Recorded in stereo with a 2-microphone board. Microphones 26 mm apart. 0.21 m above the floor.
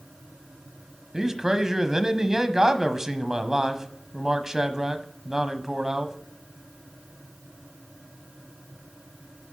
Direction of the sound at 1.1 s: 20° right (ahead or behind).